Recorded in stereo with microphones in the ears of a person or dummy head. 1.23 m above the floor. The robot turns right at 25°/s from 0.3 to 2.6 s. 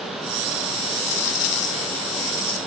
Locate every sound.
1.1 s a dropped coin: 75° left; by 2.6 s 115° left